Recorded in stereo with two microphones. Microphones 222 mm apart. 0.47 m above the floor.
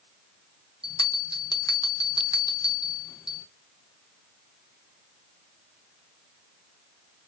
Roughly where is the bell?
Centre.